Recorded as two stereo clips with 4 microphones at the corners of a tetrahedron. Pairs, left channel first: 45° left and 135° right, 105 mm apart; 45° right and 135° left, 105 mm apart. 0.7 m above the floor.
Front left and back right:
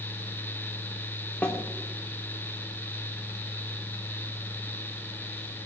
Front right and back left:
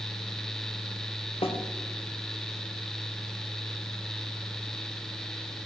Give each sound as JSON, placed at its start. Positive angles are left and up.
{"t": 1.4, "sound": "a snare drum", "azimuth_deg": -30, "distance_m": 1.8}